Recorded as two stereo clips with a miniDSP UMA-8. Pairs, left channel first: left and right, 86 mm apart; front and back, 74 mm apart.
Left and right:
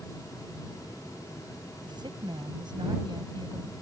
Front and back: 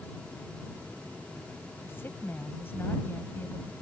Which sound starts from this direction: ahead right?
A woman speaking, at 1.8 s.